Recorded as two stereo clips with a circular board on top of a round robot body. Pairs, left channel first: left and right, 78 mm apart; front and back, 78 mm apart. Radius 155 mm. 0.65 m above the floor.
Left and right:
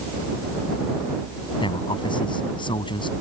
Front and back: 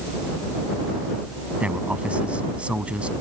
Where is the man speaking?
105° left.